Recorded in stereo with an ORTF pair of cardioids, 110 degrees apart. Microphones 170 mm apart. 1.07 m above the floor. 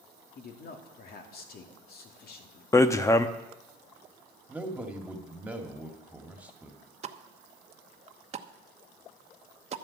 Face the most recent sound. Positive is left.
turn(degrees=-35)